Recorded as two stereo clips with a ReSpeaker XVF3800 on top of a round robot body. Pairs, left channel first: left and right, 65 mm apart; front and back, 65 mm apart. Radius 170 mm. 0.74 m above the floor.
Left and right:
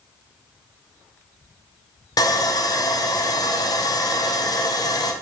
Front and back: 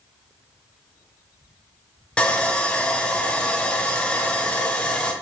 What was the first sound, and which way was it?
Sawing, 75° left.